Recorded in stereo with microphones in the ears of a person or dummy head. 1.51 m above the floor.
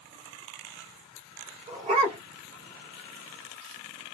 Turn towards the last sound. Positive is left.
turn(degrees=-25)  # may be behind; listen again after turning